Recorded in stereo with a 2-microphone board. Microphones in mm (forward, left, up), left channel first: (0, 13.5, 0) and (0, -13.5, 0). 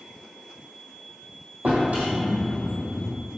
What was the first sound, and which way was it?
A drawer, 75° right (ahead or behind).